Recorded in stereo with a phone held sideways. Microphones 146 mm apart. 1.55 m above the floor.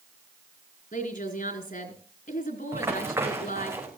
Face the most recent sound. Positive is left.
turn(degrees=-20)  # may be behind; listen again after turning